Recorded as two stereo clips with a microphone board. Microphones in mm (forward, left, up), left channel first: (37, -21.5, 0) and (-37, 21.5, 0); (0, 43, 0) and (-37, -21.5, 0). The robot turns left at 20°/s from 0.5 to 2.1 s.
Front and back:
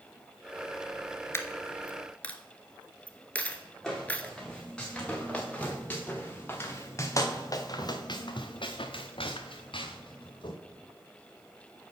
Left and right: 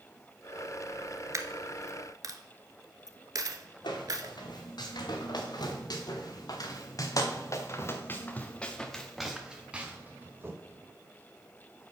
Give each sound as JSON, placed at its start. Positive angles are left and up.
{"t": 1.3, "sound": "a dropped coin", "azimuth_deg": -85, "distance_m": 0.8}
{"t": 3.8, "sound": "footsteps", "azimuth_deg": 55, "distance_m": 3.5}